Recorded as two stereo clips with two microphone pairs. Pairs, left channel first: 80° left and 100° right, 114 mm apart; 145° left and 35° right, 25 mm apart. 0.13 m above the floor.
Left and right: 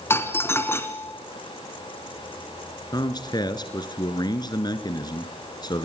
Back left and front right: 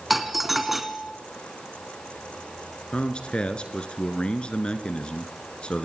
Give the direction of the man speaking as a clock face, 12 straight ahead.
8 o'clock.